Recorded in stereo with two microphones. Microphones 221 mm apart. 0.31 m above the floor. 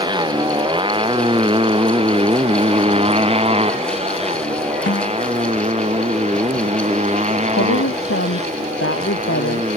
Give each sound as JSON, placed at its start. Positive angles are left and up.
{"t": 0.0, "sound": "a motorcycle", "side_deg": -20}
{"t": 4.9, "sound": "a snare drum", "side_deg": 60}
{"t": 7.6, "sound": "a woman speaking", "side_deg": 75}